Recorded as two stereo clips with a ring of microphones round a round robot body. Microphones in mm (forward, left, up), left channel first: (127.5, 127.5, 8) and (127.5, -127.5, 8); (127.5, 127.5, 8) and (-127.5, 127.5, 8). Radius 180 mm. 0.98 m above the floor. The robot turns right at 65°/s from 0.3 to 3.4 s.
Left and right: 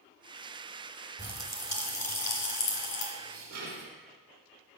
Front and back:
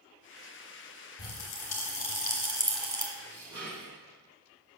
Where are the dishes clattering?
115° right, 1.9 m; by 3.9 s 100° right, 1.9 m.